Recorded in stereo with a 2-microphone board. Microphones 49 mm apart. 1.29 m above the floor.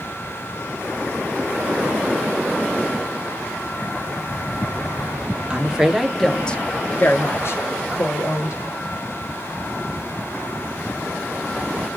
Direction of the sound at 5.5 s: 15° right (ahead or behind).